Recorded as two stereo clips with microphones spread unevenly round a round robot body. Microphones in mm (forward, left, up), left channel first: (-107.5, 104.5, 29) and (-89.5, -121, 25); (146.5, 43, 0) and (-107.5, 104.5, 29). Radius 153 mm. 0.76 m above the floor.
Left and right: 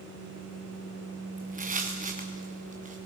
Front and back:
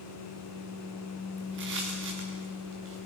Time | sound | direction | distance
1.4 | footsteps | 140° right | 3 m